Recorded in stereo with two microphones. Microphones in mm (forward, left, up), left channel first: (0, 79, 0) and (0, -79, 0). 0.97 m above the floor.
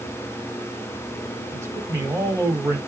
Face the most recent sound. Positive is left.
turn(degrees=-20)  # may be behind; listen again after turning